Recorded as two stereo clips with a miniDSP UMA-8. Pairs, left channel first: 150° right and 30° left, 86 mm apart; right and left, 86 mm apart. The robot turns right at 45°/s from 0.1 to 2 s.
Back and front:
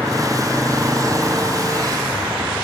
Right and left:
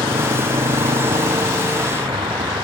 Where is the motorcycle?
105° left; by 2.6 s 90° left.